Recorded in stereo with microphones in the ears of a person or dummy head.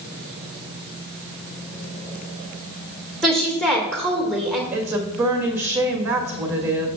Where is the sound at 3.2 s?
5° right (ahead or behind), 2 m.